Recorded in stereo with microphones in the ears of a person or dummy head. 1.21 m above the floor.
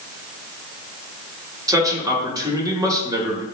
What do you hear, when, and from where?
1.7 s a man speaking: 15° right (ahead or behind), 1.0 m